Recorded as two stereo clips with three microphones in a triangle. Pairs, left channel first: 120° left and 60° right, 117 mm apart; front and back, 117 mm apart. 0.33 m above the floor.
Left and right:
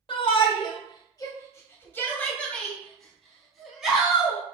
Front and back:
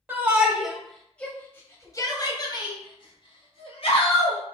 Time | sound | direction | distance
0.1 | a shout | 115° left | 1.3 m